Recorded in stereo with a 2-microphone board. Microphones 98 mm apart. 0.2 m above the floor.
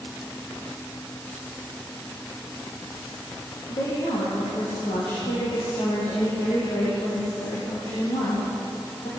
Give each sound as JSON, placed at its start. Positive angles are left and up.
{"t": 3.7, "sound": "a woman speaking", "side_deg": 75, "distance_m": 9.0}